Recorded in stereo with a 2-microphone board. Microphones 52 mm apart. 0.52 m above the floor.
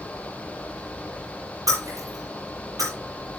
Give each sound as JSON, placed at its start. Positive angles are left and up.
{"t": 1.7, "sound": "breaking glass", "side_deg": -80, "distance_m": 8.0}